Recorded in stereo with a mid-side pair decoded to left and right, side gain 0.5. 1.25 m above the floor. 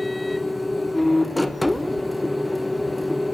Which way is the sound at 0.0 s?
5° left.